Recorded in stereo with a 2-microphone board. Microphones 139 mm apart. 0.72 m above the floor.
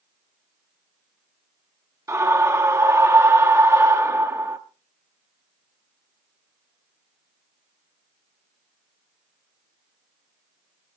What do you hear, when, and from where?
2.1 s a scream: 20° right (ahead or behind), 0.8 m